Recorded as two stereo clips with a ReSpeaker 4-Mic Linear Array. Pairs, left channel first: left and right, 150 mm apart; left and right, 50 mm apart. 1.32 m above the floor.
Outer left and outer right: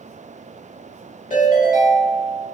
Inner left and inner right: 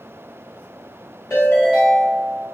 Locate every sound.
1.3 s a ringtone: 65° left (ahead or behind), 1.6 m